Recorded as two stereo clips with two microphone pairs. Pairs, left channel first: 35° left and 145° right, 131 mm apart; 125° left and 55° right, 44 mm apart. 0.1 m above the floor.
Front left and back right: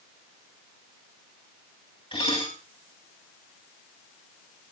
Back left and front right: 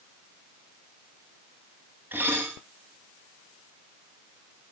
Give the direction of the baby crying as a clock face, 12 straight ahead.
I don't hear a baby crying.